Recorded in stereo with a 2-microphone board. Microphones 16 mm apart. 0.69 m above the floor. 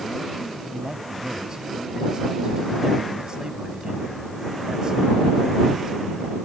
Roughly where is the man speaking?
Right.